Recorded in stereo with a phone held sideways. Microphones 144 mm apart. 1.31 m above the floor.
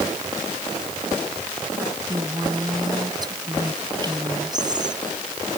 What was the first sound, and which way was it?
A woman speaking, 30° right (ahead or behind).